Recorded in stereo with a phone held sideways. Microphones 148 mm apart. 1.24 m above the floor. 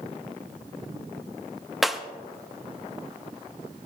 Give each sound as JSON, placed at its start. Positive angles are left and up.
{"t": 1.8, "sound": "breaking glass", "side_deg": 0, "distance_m": 1.0}